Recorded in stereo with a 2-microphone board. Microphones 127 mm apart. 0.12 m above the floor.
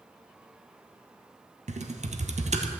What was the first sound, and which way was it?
Typing on a keyboard, 65° right (ahead or behind).